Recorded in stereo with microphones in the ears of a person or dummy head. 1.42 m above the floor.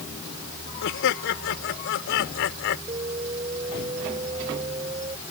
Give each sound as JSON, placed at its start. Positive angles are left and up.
{"t": 0.8, "sound": "laughter", "side_deg": 65}
{"t": 2.9, "sound": "an alarm", "side_deg": -30}